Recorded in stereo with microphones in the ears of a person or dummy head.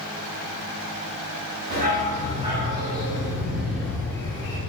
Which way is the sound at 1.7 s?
35° right (ahead or behind).